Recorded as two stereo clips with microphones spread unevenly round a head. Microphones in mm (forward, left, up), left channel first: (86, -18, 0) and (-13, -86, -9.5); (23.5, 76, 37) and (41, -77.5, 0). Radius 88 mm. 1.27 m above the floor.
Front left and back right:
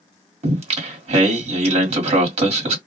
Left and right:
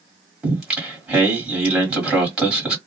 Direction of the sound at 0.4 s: Straight behind.